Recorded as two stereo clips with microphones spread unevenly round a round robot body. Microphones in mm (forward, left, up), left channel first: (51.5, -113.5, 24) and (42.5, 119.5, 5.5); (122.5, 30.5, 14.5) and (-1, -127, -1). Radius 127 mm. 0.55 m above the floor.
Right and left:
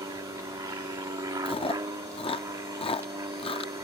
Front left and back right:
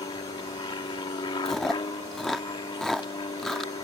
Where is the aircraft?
55° left.